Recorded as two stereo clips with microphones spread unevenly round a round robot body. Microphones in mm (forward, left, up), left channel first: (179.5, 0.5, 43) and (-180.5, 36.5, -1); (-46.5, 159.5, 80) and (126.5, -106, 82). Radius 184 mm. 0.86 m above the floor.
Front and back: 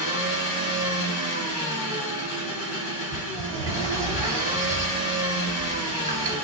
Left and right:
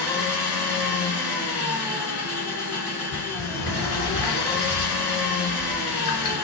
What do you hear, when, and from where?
0.0 s an engine running: 30° left, 1.4 m
3.1 s a sliding door: 100° left, 2 m